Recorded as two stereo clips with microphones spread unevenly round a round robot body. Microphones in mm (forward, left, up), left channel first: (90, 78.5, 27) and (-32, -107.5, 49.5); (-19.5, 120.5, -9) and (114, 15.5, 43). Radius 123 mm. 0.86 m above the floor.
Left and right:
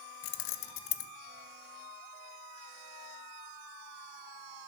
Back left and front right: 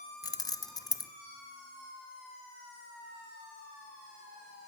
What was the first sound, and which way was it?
Keys jangling, 80° left.